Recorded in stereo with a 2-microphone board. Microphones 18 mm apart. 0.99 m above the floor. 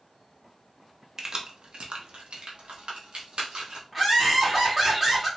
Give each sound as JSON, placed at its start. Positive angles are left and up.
{"t": 1.2, "sound": "keys jangling", "side_deg": -35, "distance_m": 0.6}
{"t": 3.9, "sound": "laughter", "side_deg": -10, "distance_m": 1.9}